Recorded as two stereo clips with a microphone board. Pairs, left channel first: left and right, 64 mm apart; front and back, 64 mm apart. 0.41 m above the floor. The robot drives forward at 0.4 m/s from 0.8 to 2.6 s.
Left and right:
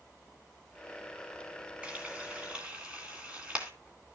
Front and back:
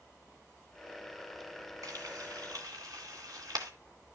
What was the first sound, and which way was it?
Frying, 160° right.